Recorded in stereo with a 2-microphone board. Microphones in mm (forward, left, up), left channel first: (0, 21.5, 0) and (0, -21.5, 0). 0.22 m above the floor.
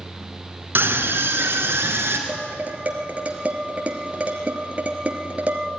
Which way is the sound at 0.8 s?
55° right (ahead or behind).